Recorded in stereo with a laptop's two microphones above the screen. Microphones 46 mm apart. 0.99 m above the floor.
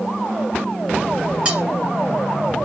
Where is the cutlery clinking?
25° right (ahead or behind), 1.3 m.